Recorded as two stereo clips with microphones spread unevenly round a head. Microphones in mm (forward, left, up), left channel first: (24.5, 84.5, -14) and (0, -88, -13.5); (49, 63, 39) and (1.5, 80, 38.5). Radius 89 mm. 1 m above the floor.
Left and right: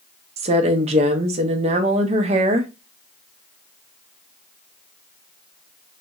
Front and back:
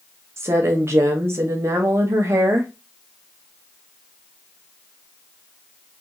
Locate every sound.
0.4 s a woman speaking: 155° right, 0.6 m